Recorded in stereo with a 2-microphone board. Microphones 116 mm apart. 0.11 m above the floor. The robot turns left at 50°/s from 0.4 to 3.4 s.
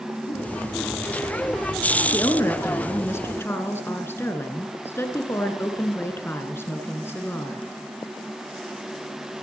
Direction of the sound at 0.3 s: 35° left (ahead or behind).